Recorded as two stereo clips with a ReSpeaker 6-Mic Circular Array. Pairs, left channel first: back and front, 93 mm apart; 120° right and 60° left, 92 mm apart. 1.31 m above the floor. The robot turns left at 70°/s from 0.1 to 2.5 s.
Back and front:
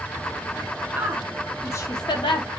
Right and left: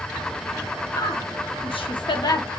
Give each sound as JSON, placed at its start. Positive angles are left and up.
{"t": 0.9, "sound": "a woman speaking", "azimuth_deg": -65, "distance_m": 0.7}